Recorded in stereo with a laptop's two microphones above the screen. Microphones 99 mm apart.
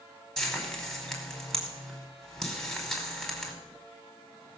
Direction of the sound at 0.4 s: 5° left (ahead or behind).